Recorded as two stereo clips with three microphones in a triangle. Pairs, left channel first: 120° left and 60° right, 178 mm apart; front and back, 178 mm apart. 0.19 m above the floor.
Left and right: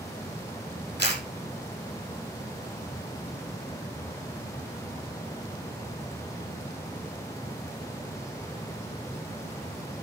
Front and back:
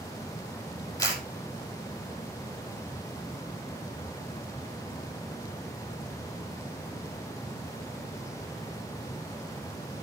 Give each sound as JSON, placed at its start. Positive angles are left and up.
{"t": 1.0, "sound": "a camera shutter", "azimuth_deg": -70, "distance_m": 5.0}